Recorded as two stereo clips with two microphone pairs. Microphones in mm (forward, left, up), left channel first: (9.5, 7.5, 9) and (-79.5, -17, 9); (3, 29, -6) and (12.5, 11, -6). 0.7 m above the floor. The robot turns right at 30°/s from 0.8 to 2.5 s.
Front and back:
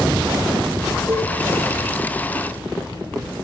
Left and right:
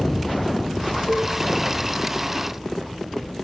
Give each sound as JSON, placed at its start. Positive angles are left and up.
{"t": 1.1, "sound": "a cowbell", "azimuth_deg": 135, "distance_m": 6.0}